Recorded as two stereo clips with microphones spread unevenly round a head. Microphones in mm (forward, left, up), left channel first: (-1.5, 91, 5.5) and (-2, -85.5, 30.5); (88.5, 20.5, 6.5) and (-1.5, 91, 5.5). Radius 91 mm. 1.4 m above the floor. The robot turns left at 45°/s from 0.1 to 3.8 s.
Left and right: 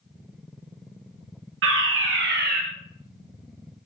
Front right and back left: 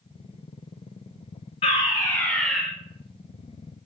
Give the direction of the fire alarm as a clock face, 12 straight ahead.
3 o'clock.